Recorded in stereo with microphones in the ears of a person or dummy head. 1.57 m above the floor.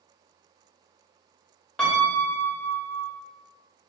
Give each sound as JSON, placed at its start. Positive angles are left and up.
{"t": 1.8, "sound": "a piano", "side_deg": 10, "distance_m": 2.0}